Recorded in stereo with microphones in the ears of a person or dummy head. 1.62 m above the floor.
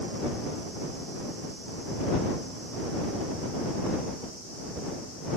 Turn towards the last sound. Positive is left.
No sound to turn to.